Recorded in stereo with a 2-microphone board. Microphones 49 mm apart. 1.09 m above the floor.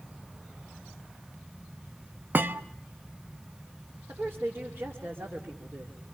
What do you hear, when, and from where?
2.3 s a thud: 45° right (ahead or behind), 0.7 m
4.1 s a woman speaking: 65° right (ahead or behind), 2.5 m